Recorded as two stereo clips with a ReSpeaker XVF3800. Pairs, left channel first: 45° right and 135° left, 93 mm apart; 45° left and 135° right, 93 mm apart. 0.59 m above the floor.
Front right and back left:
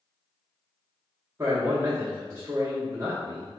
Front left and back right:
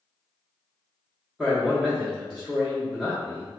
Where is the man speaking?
145° left, 0.7 m.